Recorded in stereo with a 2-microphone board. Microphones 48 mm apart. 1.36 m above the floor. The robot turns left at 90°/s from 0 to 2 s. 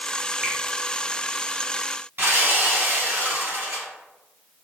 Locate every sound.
0.4 s a finger snap: 10° right (ahead or behind), 0.8 m; by 0.6 s 20° right (ahead or behind), 0.8 m
2.2 s sawing: 45° right (ahead or behind), 1.6 m